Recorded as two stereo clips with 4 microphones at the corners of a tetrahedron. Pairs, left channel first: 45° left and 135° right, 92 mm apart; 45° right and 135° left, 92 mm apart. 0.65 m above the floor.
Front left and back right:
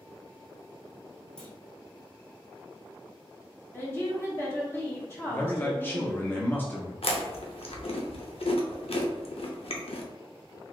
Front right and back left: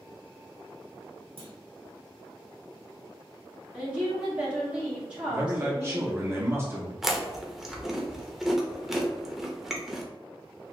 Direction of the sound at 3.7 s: 70° left.